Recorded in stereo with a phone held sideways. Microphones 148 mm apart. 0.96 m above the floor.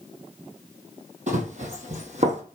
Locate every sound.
1.3 s running footsteps: 55° right (ahead or behind), 1.6 m